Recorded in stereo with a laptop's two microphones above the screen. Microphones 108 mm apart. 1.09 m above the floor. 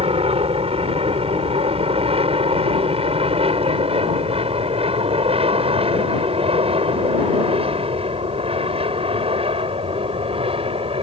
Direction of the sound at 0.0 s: 65° right (ahead or behind).